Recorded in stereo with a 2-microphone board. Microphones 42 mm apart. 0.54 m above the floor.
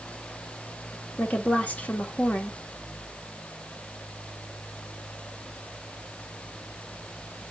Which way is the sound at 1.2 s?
40° left (ahead or behind).